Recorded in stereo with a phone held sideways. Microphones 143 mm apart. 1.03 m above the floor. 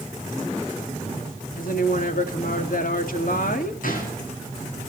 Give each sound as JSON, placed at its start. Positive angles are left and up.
{"t": 1.6, "sound": "a woman speaking", "side_deg": 80, "distance_m": 2.5}
{"t": 3.8, "sound": "a gunshot", "side_deg": 75, "distance_m": 7.5}